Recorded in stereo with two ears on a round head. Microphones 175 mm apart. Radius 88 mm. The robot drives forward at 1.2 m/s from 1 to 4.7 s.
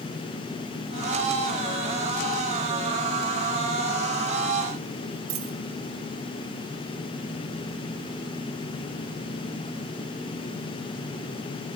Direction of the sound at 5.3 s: 85° right.